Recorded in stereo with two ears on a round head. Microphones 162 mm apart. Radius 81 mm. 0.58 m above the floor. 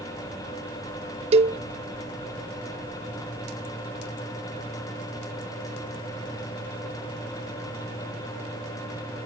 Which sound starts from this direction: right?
A cowbell, at 1.3 s.